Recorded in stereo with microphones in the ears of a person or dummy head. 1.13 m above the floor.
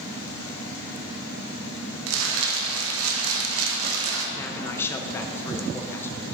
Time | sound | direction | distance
2.1 | crumpling | 75° right (ahead or behind) | 0.9 m
4.3 | a man speaking | 10° left (ahead or behind) | 0.6 m